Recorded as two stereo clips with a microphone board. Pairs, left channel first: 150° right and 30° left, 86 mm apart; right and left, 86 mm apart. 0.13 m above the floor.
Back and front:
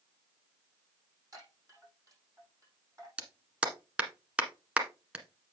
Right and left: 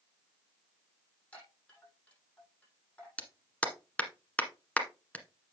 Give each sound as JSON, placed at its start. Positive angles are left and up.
{"t": 1.3, "sound": "a chime", "azimuth_deg": -15, "distance_m": 6.5}
{"t": 3.2, "sound": "a clap", "azimuth_deg": -30, "distance_m": 1.5}